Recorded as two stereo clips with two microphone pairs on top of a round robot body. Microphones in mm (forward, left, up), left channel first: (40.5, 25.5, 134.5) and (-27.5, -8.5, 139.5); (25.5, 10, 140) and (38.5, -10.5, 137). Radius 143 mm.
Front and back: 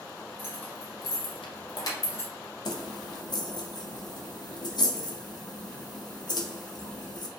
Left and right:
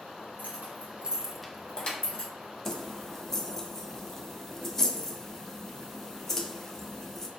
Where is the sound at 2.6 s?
40° left, 0.5 m.